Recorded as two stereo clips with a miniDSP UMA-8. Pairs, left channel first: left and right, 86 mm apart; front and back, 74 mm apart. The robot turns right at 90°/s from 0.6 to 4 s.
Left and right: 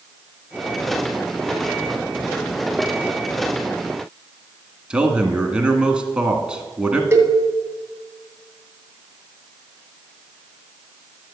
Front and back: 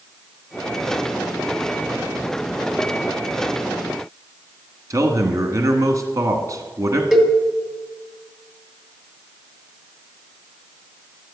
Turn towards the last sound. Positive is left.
turn(degrees=-100)